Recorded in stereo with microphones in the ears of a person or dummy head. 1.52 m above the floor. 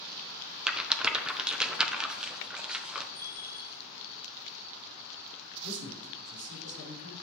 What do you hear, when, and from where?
0.7 s a rattle: 5° right (ahead or behind), 0.7 m
3.1 s a bell: 20° left (ahead or behind), 1.1 m
5.6 s a man speaking: 70° right (ahead or behind), 4.5 m